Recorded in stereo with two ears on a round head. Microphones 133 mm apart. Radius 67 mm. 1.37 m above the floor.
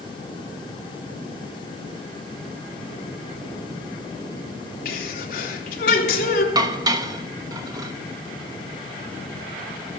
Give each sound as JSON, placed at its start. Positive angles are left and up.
{"t": 4.8, "sound": "a sneeze", "side_deg": 65, "distance_m": 3.5}
{"t": 6.5, "sound": "dishes clattering", "side_deg": -25, "distance_m": 1.1}